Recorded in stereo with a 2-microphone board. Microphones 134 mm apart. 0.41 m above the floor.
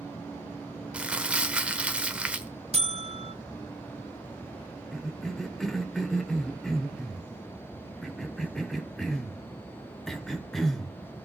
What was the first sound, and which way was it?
Crumpling, 10° right (ahead or behind).